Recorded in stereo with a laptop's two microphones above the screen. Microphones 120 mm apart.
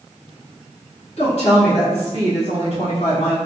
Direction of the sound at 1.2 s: 60° left (ahead or behind).